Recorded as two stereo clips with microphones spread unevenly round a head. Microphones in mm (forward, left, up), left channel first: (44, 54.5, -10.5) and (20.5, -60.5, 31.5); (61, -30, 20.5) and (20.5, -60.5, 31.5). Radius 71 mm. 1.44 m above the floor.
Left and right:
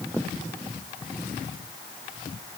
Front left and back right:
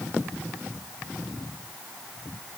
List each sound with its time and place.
Only background noise.